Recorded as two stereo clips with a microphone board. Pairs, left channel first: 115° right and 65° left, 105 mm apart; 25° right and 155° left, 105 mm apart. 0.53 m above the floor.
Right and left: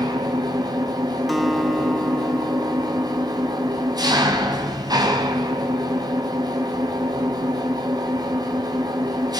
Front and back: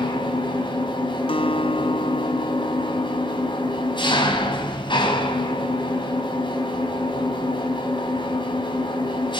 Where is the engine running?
15° left, 3.5 m.